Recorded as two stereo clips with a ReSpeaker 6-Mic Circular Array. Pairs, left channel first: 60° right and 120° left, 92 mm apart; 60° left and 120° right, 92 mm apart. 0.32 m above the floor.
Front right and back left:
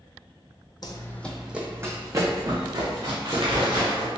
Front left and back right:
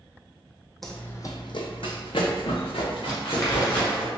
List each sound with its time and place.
0.8 s running footsteps: 30° right, 0.6 m; by 4.1 s 85° left, 2.5 m
3.1 s crumpling: 125° left, 1.5 m